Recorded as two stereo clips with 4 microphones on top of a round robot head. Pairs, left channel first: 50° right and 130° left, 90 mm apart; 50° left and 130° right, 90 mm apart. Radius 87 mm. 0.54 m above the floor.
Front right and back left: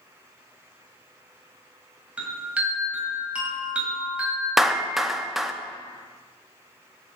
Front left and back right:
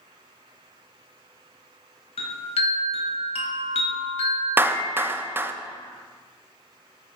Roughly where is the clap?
Behind right.